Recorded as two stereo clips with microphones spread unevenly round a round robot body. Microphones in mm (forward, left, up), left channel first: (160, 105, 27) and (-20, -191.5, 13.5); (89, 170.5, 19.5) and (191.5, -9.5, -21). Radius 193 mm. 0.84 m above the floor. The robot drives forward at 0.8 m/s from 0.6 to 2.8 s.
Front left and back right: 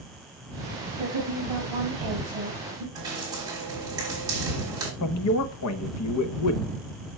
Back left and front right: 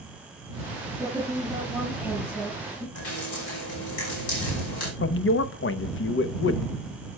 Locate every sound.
1.0 s a woman speaking: 145° right, 7 m; by 2.9 s 150° right, 8 m
3.0 s dripping: 160° left, 3 m
5.0 s a man speaking: 100° left, 0.8 m